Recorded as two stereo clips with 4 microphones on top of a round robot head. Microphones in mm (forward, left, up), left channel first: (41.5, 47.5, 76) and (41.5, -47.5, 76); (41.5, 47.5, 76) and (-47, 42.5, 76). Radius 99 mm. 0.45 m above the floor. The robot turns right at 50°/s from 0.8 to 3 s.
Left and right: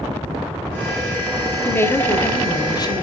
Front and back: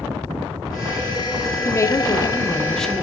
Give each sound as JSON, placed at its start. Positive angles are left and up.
{"t": 1.6, "sound": "a woman speaking", "azimuth_deg": 25, "distance_m": 1.3}